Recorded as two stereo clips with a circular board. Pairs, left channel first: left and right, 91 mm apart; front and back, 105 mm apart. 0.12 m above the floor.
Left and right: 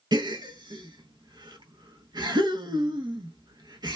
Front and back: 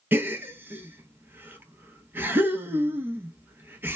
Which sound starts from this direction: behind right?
A gasp, at 0.1 s.